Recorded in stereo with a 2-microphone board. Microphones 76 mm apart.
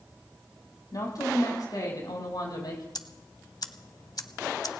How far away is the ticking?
About 0.8 m.